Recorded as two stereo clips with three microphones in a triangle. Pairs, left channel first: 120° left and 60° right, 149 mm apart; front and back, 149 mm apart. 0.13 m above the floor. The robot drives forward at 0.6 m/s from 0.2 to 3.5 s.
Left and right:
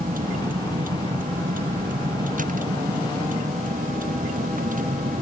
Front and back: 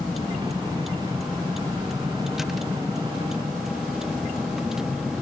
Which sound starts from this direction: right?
A vehicle, at 0.0 s.